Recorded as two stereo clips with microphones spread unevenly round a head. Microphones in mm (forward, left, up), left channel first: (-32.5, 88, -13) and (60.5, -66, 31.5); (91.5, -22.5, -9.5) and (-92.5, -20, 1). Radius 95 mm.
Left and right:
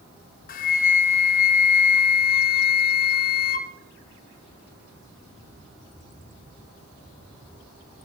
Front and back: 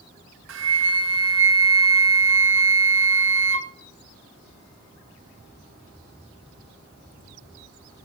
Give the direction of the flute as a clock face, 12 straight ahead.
7 o'clock.